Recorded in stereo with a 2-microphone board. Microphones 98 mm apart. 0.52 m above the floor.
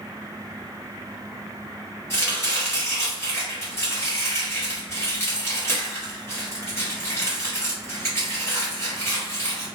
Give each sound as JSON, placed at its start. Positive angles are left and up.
{"t": 2.1, "sound": "chopping", "side_deg": 30, "distance_m": 1.3}